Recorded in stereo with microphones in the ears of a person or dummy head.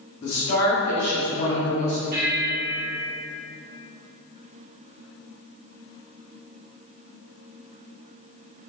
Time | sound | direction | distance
0.2 | a woman speaking | 55° left (ahead or behind) | 1.4 m
2.1 | a bell | 60° right (ahead or behind) | 1.3 m